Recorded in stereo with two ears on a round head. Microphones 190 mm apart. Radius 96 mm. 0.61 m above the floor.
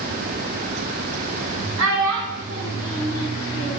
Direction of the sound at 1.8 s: 75° right (ahead or behind).